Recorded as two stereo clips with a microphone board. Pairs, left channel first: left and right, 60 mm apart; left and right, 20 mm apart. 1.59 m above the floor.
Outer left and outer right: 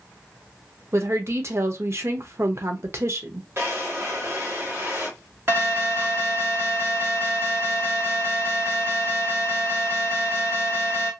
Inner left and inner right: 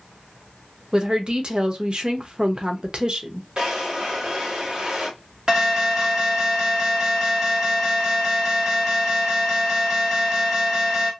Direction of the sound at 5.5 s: 45° right (ahead or behind).